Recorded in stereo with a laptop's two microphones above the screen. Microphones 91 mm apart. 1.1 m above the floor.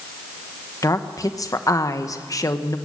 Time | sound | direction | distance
0.8 | a woman speaking | 40° left (ahead or behind) | 1.0 m